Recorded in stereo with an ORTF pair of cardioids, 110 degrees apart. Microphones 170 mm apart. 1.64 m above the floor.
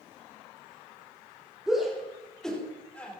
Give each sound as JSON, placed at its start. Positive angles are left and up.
{"t": 1.7, "sound": "a shout", "azimuth_deg": -5, "distance_m": 6.0}